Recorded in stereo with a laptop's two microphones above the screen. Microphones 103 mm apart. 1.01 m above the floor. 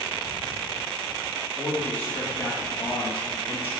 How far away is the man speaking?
About 2 m.